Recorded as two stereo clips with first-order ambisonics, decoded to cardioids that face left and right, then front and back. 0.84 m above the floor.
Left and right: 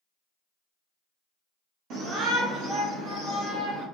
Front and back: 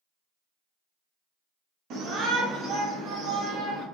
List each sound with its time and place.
1.9 s a shout: 135° right, 0.7 m; by 3.9 s 125° right, 1.9 m